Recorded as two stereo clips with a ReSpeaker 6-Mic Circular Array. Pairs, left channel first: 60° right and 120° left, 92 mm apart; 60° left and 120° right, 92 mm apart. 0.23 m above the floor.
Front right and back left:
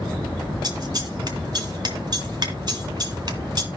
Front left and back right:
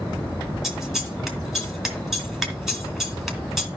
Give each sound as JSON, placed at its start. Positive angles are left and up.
{"t": 0.6, "sound": "scissors", "azimuth_deg": 155, "distance_m": 2.0}